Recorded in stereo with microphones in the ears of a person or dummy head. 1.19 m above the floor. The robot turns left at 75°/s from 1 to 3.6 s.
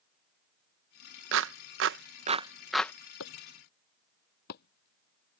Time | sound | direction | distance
1.3 | a clap | 65° right (ahead or behind) | ?
3.2 | chopping | 85° left | ?